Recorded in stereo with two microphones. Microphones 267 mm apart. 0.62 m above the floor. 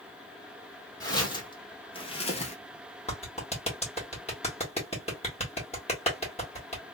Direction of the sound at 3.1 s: 25° left (ahead or behind).